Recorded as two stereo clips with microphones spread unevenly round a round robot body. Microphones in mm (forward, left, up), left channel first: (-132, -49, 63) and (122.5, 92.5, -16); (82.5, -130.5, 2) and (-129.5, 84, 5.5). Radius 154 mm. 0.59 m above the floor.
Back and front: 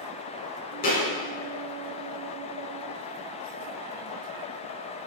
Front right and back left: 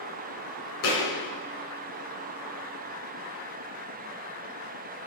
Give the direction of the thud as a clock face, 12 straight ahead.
3 o'clock.